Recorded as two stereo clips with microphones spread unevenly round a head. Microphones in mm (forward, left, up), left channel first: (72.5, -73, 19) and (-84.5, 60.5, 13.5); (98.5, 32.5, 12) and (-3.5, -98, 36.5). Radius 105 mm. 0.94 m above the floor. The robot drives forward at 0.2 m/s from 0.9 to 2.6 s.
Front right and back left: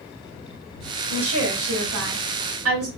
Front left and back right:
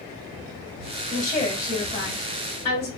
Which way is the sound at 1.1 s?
120° left.